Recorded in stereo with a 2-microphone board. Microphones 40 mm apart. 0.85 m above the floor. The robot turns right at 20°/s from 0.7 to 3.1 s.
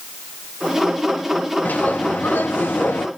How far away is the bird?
About 1.0 m.